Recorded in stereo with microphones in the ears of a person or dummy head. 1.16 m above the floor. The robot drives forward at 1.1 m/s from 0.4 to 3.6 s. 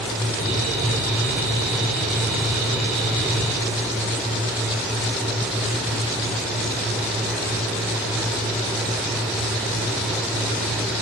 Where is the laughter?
No laughter in this recording.